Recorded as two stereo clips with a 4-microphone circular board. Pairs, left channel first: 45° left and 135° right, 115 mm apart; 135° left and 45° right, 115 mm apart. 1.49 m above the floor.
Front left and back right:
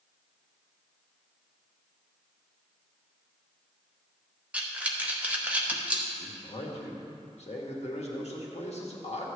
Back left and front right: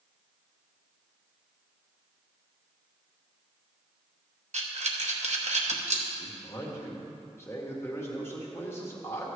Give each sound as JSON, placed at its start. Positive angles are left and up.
{"t": 4.5, "sound": "breathing", "azimuth_deg": -55, "distance_m": 1.1}
{"t": 6.2, "sound": "a man speaking", "azimuth_deg": 65, "distance_m": 1.7}